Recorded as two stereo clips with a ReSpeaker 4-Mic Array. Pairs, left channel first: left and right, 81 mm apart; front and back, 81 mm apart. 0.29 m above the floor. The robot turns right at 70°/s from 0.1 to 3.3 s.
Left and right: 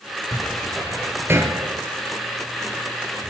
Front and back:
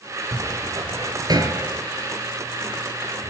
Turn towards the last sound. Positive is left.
turn(degrees=-10)